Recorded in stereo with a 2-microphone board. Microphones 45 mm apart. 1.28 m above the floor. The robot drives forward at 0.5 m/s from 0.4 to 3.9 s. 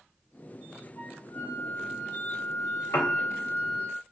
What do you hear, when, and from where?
1.0 s a flute: 55° left (ahead or behind), 1.4 m; by 3.9 s 45° left (ahead or behind), 1.6 m
2.9 s a piano: 75° left (ahead or behind), 0.8 m; by 3.2 s 80° left, 0.7 m